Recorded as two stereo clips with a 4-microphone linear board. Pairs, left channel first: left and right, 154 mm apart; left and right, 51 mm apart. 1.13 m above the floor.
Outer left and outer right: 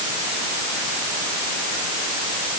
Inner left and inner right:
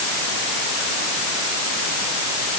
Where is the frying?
I don't hear frying.